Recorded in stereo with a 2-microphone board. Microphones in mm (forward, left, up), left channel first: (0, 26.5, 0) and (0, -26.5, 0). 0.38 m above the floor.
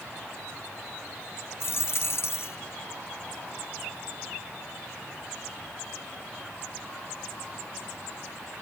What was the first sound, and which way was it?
A dropped coin, 60° left (ahead or behind).